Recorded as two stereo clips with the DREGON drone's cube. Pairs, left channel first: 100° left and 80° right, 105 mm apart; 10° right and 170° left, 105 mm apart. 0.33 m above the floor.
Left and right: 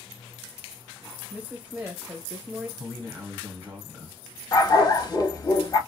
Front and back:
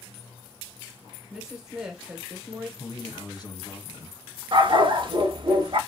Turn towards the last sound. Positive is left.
turn(degrees=140)